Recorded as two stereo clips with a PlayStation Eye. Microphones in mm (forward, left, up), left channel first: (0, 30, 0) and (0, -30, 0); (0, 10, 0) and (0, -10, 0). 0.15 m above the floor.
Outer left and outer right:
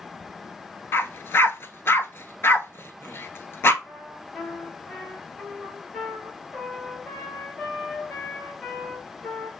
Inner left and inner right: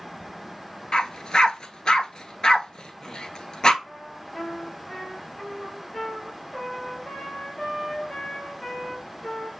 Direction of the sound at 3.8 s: 15° left (ahead or behind).